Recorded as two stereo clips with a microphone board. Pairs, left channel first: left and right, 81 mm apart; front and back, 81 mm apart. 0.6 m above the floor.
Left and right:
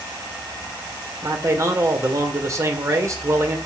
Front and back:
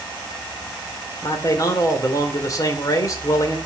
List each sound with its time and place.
1.2 s a man speaking: 40° right, 2 m